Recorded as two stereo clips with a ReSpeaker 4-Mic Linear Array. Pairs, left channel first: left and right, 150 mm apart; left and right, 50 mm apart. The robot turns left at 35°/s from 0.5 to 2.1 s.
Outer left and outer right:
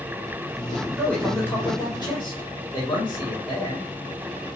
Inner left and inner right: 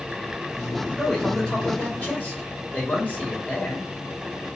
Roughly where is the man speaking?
Behind.